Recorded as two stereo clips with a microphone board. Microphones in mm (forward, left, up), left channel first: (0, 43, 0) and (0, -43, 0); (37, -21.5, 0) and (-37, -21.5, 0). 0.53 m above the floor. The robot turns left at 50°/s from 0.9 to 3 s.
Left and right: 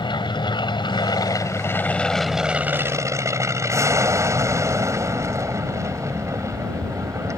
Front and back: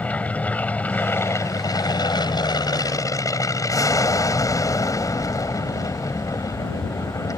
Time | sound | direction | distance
0.0 | an aircraft | 70° left | ?